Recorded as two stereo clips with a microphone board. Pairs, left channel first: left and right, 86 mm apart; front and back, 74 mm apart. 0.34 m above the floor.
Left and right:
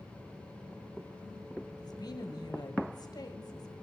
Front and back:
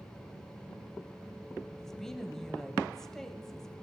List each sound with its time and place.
1.8 s a woman speaking: 80° left, 1.3 m